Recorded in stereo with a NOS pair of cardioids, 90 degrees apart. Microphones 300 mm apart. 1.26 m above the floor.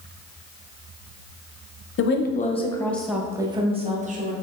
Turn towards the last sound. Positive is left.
turn(degrees=-30)